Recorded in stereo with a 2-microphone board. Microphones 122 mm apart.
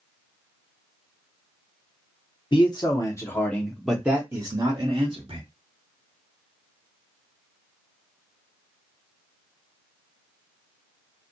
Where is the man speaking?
40° left (ahead or behind), 1.0 m; by 5.4 s 45° right (ahead or behind), 1.1 m.